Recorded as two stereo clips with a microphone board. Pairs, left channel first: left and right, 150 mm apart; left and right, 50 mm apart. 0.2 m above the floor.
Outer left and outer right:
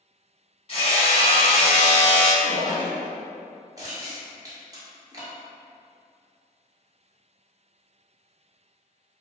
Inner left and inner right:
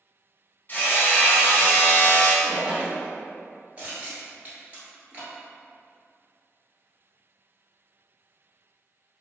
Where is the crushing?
25° right (ahead or behind), 1.2 m.